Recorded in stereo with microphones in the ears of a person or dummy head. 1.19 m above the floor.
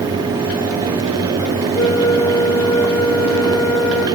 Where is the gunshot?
I don't hear a gunshot.